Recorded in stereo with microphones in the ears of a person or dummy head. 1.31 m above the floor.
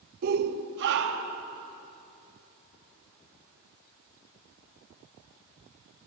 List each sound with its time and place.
0.2 s a shout: 50° right (ahead or behind), 0.9 m; by 1.4 s 60° right (ahead or behind), 3 m